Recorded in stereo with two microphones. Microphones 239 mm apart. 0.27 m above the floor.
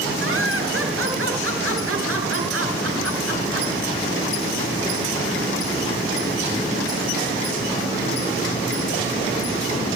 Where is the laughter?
60° right (ahead or behind), 6 m; by 3.7 s 70° right (ahead or behind), 4.5 m.